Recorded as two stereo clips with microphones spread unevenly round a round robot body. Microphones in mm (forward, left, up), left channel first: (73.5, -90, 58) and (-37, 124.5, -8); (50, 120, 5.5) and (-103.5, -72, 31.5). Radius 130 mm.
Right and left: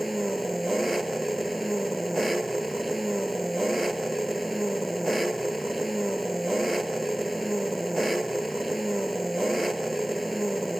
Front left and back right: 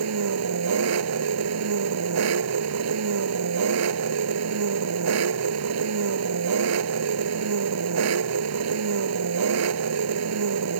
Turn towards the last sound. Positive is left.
turn(degrees=-150)